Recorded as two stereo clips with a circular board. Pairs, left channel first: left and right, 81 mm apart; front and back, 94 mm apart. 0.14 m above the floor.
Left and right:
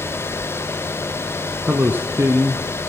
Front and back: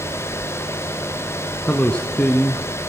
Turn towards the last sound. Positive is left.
turn(degrees=-65)